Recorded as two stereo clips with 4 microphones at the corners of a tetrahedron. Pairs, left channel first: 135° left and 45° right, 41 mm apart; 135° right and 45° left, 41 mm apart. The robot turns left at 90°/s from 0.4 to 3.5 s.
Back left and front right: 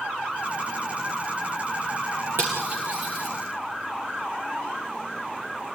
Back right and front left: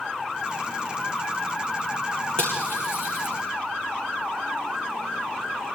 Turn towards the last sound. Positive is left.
turn(degrees=-170)